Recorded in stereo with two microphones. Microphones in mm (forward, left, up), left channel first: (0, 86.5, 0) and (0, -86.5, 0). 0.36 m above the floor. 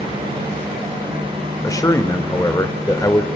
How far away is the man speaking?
About 1.1 m.